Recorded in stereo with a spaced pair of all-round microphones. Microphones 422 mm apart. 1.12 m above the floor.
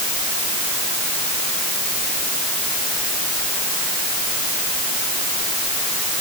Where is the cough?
I don't hear a cough.